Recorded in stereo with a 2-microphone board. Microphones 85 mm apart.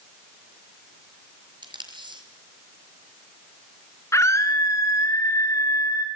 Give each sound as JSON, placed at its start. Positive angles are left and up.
{"t": 1.6, "sound": "tape being pulled", "side_deg": -65, "distance_m": 5.0}
{"t": 4.1, "sound": "a scream", "side_deg": 35, "distance_m": 3.0}